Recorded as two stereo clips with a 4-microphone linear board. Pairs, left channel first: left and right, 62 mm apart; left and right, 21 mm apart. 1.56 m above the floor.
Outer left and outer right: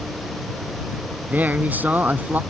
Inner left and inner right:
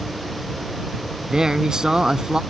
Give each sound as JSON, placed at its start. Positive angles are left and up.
{"t": 1.3, "sound": "a man speaking", "side_deg": -30}